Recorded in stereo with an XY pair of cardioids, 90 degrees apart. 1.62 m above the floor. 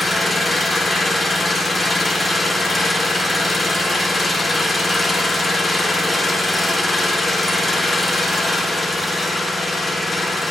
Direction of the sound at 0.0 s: 20° left.